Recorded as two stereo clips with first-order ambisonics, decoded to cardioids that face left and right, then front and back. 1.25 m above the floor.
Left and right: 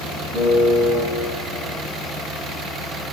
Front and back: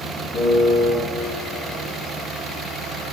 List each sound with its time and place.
0.3 s a piano: 45° right, 4.5 m